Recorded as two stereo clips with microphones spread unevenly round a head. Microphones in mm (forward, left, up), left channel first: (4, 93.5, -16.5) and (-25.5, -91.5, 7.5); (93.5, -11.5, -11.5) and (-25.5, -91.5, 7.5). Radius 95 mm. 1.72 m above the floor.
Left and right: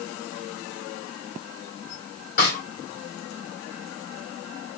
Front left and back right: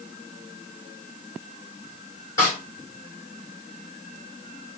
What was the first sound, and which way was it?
A snare drum, 105° left.